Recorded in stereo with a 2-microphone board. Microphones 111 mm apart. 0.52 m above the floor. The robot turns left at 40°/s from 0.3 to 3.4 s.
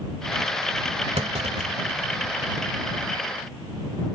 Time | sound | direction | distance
1.2 | a clunk | 70° right (ahead or behind) | ?